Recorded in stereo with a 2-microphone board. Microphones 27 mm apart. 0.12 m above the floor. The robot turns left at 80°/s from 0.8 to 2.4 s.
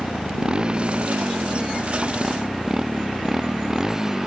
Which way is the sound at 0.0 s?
35° right.